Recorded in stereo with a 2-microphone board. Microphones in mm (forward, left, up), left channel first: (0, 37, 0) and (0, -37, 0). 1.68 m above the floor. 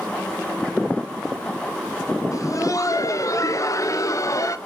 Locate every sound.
2.3 s laughter: 45° left (ahead or behind), 0.9 m